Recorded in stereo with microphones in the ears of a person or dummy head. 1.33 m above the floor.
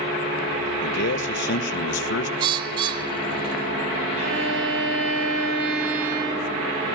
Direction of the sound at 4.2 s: 70° right (ahead or behind).